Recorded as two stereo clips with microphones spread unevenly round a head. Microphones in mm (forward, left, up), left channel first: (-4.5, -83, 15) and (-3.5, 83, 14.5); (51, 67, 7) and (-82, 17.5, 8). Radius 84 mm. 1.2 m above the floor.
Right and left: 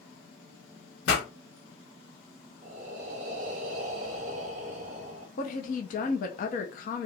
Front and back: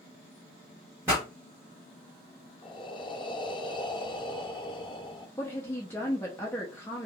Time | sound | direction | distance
1.1 | a pop | 85° right | 1.5 m
2.6 | breathing | 65° left | 0.6 m
5.4 | a woman speaking | 55° right | 0.7 m